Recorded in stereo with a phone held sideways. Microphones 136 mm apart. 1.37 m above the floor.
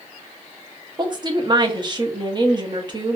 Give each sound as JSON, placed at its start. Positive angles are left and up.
{"t": 1.0, "sound": "a woman speaking", "side_deg": -35, "distance_m": 0.8}